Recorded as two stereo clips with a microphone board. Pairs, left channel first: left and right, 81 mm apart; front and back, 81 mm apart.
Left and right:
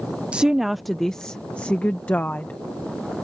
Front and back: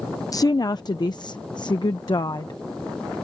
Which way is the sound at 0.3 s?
20° right.